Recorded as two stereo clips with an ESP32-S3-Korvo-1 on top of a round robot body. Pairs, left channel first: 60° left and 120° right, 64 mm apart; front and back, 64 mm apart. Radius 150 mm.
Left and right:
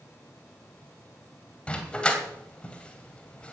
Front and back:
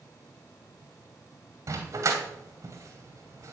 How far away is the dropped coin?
No dropped coin in this recording.